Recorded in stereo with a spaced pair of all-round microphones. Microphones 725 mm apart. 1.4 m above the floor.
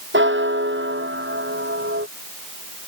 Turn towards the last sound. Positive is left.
turn(degrees=-15)  # may be behind; listen again after turning